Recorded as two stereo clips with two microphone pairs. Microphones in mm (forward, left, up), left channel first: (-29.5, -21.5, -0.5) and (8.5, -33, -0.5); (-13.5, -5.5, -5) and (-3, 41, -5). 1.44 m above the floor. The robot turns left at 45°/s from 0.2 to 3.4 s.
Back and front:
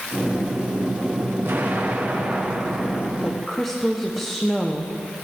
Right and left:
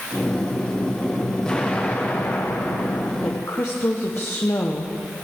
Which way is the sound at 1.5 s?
30° right.